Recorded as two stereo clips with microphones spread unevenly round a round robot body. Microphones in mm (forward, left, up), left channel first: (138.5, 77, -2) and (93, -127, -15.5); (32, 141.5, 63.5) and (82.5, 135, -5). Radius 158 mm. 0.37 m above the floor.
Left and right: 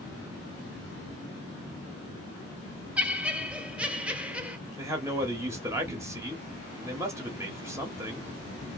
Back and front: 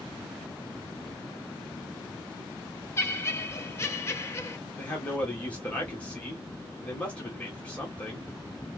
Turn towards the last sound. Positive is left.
turn(degrees=-35)